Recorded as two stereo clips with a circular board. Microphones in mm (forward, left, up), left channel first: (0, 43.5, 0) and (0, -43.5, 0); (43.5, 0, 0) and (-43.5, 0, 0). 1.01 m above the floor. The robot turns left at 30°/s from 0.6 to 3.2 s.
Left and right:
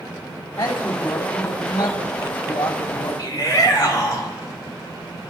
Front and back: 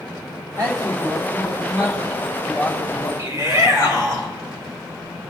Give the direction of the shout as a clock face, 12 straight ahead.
8 o'clock.